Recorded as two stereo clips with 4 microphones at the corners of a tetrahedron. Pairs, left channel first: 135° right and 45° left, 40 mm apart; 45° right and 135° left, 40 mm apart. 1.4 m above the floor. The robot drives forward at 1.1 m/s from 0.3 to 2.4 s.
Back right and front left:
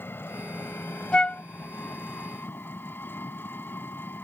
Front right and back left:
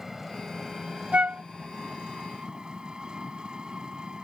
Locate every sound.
0.0 s an engine running: 145° right; by 4.2 s 155° right
1.1 s a flute: 170° left; by 1.4 s 175° left